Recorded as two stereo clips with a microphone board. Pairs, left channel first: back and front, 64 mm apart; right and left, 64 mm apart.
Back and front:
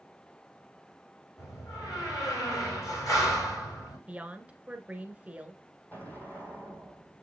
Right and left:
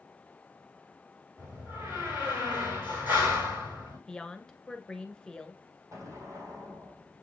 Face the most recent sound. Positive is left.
turn(degrees=120)